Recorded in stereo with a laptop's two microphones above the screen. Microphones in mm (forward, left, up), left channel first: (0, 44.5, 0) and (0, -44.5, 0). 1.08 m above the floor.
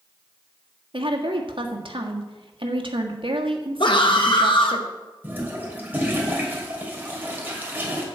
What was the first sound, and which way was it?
A woman speaking, 75° right (ahead or behind).